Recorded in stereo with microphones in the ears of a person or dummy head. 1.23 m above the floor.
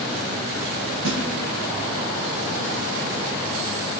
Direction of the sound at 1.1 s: 70° right (ahead or behind).